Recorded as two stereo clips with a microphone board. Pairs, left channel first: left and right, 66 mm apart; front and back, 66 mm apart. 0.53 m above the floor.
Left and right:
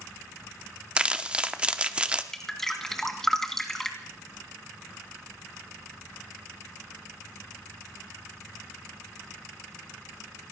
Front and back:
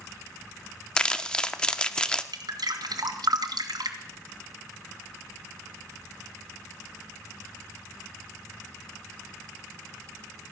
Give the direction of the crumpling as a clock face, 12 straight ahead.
2 o'clock.